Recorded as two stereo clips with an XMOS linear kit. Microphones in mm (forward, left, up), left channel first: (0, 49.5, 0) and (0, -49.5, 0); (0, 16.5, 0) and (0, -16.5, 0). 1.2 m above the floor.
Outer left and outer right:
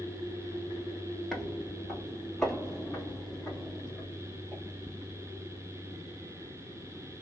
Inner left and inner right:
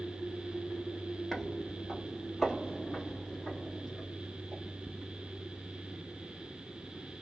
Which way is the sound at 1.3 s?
5° left (ahead or behind).